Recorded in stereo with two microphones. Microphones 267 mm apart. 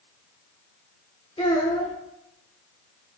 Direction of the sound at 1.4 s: 25° left (ahead or behind).